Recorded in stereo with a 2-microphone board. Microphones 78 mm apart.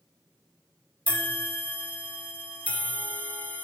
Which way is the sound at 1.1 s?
20° left (ahead or behind).